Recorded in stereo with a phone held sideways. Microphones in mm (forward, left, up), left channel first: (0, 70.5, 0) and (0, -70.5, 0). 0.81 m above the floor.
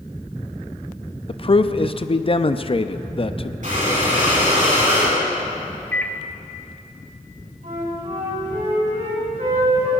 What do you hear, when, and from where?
1.3 s a man speaking: 40° left (ahead or behind), 0.5 m
3.6 s breathing: 65° right (ahead or behind), 5.5 m
5.9 s a microwave: 10° left (ahead or behind), 0.8 m
7.6 s a flute: 60° right (ahead or behind), 6 m